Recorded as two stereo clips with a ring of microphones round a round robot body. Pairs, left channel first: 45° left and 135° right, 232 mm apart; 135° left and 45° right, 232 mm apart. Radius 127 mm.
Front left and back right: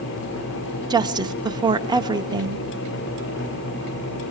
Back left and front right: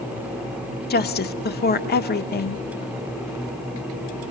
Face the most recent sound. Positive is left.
turn(degrees=160)